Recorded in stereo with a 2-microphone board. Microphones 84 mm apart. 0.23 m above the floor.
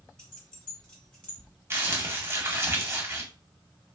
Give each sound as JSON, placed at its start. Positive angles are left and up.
{"t": 0.2, "sound": "keys jangling", "side_deg": 10, "distance_m": 1.4}
{"t": 1.7, "sound": "crumpling", "side_deg": -30, "distance_m": 0.7}